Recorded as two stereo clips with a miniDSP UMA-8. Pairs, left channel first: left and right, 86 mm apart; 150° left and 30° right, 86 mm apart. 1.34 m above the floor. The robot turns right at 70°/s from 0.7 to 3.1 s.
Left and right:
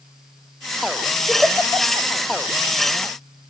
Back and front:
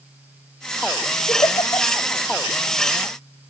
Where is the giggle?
175° right, 3 m; by 2.1 s 115° right, 3 m.